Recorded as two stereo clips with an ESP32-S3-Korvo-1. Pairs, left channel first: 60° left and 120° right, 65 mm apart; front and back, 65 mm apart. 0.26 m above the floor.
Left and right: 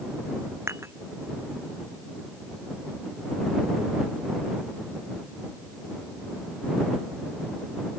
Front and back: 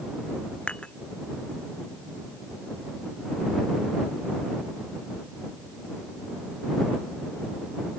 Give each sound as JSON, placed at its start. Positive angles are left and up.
{"t": 0.7, "sound": "dishes clattering", "azimuth_deg": -75}